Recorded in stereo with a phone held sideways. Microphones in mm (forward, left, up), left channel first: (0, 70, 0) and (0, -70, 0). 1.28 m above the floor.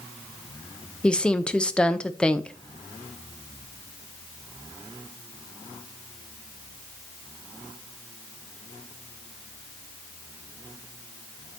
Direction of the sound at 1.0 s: 5° left (ahead or behind).